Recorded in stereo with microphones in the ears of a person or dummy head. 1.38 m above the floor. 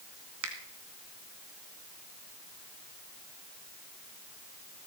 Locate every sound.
0.4 s a finger snap: 75° right (ahead or behind), 2 m